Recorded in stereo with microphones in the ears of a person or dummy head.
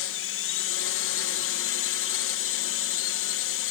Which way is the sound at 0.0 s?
60° left (ahead or behind).